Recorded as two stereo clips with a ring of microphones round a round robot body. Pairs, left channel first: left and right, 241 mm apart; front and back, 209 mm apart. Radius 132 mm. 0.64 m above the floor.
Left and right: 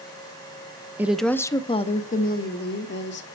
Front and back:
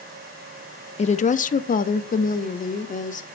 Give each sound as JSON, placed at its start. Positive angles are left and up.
{"t": 1.0, "sound": "a woman speaking", "azimuth_deg": -15, "distance_m": 0.7}